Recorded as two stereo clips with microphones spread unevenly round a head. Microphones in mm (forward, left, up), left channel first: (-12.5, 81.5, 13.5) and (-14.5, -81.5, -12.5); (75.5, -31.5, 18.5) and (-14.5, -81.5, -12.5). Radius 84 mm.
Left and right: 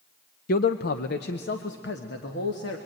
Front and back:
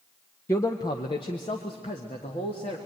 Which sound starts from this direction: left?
A man speaking, at 0.5 s.